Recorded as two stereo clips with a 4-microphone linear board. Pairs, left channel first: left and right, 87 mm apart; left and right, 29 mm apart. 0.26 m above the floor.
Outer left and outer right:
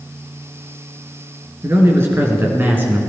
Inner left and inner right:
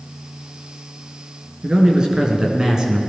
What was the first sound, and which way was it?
A man speaking, 30° right (ahead or behind).